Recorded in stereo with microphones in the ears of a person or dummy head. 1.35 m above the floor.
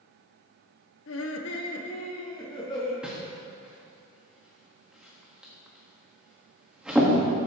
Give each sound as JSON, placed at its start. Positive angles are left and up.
{"t": 1.1, "sound": "laughter", "side_deg": 65, "distance_m": 0.9}
{"t": 3.0, "sound": "a whoosh", "side_deg": 5, "distance_m": 1.6}